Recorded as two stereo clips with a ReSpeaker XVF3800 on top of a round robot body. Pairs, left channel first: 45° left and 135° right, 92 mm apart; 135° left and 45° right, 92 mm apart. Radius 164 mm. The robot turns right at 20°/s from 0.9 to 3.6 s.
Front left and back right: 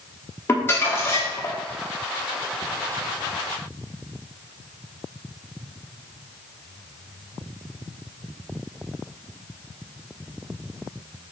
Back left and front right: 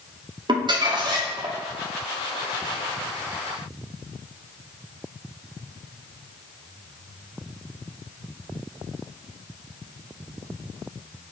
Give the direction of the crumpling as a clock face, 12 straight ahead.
1 o'clock.